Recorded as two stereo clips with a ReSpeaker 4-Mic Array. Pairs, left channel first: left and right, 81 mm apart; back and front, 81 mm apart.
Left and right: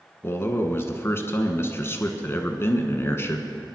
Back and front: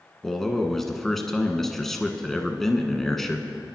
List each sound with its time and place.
0.2 s a man speaking: 95° left, 1.3 m